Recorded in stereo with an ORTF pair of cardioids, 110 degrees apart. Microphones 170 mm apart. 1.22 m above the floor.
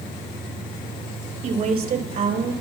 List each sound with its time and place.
1.4 s a woman speaking: 55° right, 5 m; by 2.5 s 60° right, 6 m